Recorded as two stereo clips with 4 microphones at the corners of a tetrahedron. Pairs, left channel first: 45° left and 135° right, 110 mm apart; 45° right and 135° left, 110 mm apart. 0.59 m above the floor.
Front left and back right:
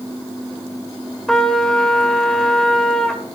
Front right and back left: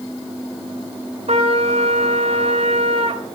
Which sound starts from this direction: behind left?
A trumpet, at 1.3 s.